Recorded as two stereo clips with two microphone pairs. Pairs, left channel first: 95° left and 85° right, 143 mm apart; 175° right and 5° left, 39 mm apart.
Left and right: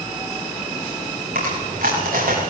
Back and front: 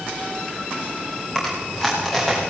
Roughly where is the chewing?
Right.